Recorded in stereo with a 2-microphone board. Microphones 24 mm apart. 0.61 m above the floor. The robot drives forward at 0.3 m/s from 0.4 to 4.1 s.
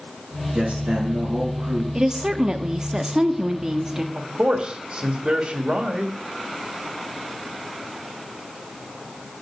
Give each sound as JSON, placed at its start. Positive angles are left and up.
{"t": 0.5, "sound": "a man speaking", "side_deg": -75, "distance_m": 6.5}
{"t": 1.9, "sound": "a woman speaking", "side_deg": -25, "distance_m": 0.8}
{"t": 4.2, "sound": "a man speaking", "side_deg": -55, "distance_m": 1.5}